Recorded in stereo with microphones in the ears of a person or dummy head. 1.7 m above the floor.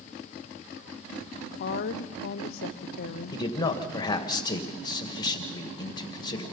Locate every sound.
1.6 s a woman speaking: 40° left (ahead or behind), 0.7 m
3.3 s a man speaking: 15° left (ahead or behind), 2 m